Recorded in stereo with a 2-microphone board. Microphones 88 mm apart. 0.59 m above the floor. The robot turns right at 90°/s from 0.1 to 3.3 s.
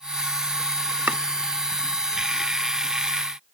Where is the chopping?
20° right (ahead or behind), 0.8 m.